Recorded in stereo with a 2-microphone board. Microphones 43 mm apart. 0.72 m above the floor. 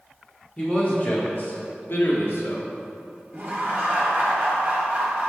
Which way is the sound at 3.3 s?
30° right (ahead or behind).